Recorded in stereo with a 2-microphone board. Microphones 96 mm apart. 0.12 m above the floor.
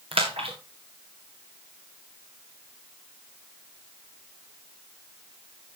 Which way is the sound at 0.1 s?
75° right (ahead or behind).